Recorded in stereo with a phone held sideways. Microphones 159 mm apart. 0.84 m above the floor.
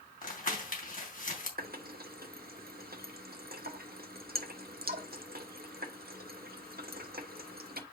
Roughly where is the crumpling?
Left.